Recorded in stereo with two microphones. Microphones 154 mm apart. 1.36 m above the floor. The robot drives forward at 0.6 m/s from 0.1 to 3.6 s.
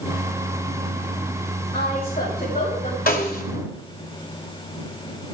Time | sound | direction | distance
1.7 | a woman speaking | 80° left | 7.5 m
3.1 | a snare drum | 70° left (ahead or behind) | 2.5 m